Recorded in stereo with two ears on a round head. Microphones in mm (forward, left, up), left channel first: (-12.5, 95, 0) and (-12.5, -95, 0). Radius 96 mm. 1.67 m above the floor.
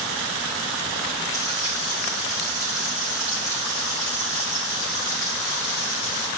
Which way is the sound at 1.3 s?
15° left (ahead or behind).